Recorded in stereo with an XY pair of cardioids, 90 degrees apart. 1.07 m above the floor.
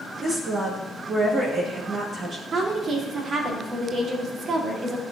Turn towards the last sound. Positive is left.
turn(degrees=-60)